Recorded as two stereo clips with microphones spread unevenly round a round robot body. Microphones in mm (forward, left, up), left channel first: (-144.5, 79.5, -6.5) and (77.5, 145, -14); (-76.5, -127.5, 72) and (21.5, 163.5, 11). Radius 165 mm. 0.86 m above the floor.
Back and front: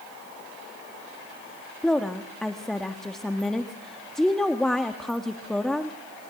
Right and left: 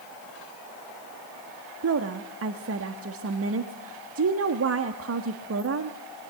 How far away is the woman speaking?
About 1.4 m.